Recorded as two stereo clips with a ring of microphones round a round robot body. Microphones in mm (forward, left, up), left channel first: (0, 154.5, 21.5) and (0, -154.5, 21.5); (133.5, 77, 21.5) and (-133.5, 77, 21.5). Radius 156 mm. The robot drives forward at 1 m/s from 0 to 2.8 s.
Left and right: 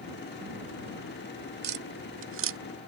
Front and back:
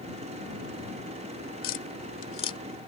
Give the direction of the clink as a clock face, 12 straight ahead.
I don't hear a clink.